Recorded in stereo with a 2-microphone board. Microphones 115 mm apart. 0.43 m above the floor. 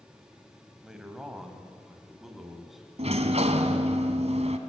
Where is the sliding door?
65° right (ahead or behind), 1.8 m.